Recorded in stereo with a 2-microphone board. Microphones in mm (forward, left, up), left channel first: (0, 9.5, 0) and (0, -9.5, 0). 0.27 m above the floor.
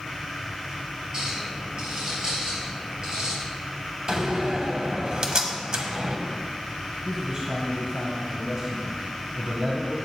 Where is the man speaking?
40° right (ahead or behind), 1.3 m.